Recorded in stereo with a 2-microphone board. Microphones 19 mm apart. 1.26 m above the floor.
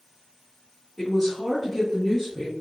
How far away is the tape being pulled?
I don't hear tape being pulled.